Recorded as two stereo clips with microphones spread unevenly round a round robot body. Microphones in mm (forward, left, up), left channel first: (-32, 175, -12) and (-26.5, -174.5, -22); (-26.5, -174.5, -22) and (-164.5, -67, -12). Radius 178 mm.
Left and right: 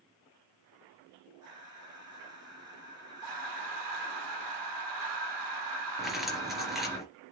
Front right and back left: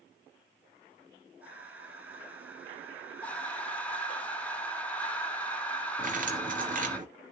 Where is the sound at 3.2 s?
120° right, 2 m.